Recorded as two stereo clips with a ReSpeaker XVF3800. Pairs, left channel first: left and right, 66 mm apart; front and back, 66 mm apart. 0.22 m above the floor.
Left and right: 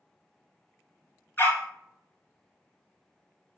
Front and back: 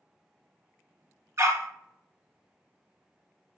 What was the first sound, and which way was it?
A dog barking, 145° left.